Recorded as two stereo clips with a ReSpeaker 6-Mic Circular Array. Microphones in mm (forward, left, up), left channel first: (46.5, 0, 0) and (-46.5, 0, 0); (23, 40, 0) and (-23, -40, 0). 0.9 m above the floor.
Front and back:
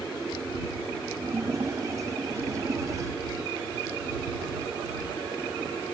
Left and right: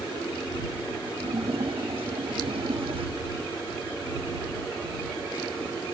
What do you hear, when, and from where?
1.2 s a splash: 125° right